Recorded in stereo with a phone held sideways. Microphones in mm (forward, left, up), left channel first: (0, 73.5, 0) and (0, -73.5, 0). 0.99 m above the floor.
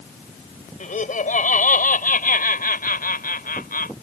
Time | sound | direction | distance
0.8 | laughter | 60° left (ahead or behind) | ?